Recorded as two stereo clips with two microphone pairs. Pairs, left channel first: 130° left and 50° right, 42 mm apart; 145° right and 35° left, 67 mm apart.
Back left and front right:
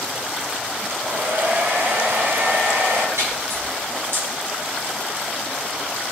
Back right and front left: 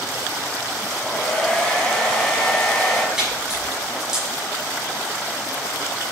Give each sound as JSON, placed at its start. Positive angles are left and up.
{"t": 0.9, "sound": "a hair dryer", "azimuth_deg": -60, "distance_m": 3.5}
{"t": 3.2, "sound": "a splash", "azimuth_deg": -45, "distance_m": 5.5}